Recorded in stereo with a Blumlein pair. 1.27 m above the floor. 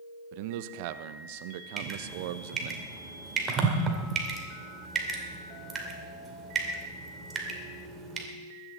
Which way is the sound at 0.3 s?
45° right.